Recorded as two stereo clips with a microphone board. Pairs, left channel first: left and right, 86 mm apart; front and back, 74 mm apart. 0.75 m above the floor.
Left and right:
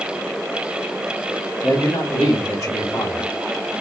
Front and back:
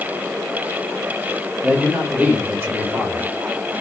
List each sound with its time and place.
1.6 s a man speaking: 105° left, 1.3 m; by 3.7 s 145° left, 1.8 m